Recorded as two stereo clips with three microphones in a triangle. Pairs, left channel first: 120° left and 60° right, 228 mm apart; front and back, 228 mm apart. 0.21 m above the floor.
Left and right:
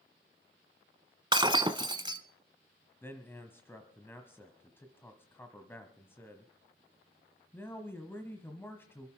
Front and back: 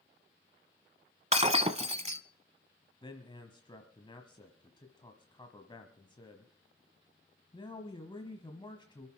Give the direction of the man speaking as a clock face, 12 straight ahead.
10 o'clock.